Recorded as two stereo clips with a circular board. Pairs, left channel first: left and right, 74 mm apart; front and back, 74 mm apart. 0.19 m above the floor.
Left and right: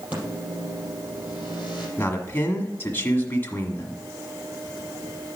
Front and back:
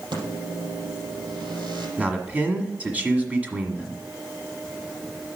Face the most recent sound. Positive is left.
turn(degrees=130)